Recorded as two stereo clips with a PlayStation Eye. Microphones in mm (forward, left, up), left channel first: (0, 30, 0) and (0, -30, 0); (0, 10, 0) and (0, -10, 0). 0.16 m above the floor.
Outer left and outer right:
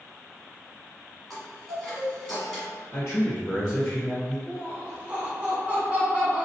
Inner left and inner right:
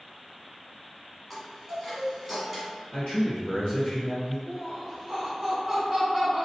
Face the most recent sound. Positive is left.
turn(degrees=-20)  # may be behind; listen again after turning